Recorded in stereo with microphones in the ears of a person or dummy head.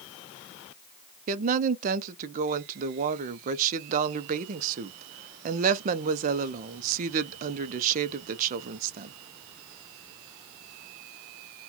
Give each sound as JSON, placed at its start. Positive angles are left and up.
{"t": 1.3, "sound": "a woman speaking", "side_deg": -45, "distance_m": 0.5}